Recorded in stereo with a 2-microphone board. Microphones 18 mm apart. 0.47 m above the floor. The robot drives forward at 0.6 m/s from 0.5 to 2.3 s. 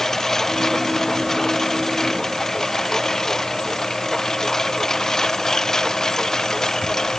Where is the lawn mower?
20° left (ahead or behind); by 7.2 s 25° left (ahead or behind).